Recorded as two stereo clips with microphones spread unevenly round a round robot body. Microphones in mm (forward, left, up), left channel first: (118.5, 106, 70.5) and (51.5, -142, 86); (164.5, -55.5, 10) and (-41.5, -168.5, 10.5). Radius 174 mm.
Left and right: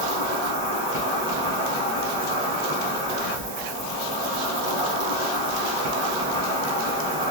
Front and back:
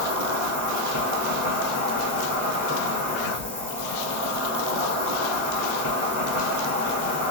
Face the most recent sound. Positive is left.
turn(degrees=-145)